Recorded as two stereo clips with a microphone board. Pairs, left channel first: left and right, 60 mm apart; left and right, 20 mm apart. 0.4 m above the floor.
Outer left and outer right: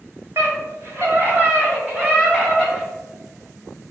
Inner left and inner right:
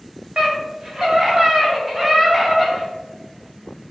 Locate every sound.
0.4 s a scream: 45° right (ahead or behind), 2.5 m; by 2.9 s 15° right (ahead or behind), 2.5 m